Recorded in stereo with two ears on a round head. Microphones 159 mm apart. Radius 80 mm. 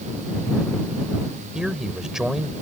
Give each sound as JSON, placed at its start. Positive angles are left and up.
{"t": 1.6, "sound": "a man speaking", "side_deg": -5}